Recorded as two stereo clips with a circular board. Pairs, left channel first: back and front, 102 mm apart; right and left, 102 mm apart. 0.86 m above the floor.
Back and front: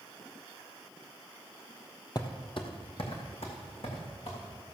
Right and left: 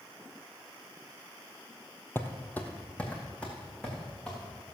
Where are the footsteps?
150° right, 1.3 m; by 4.4 s 170° right, 4.5 m.